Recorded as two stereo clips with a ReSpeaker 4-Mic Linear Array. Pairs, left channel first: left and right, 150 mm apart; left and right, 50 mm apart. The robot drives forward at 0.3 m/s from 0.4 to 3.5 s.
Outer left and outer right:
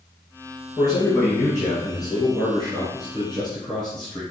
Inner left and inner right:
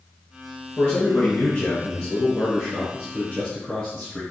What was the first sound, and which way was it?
A man speaking, 25° left (ahead or behind).